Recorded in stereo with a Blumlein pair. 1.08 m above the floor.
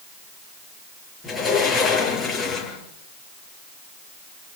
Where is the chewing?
No chewing in this recording.